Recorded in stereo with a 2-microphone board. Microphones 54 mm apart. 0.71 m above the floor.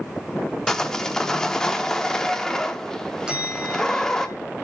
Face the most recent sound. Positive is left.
turn(degrees=-15)  # may be behind; listen again after turning